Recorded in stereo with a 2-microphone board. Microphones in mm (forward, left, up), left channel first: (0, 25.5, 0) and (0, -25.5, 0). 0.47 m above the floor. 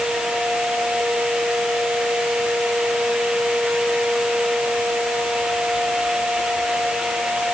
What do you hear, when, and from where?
Only background noise.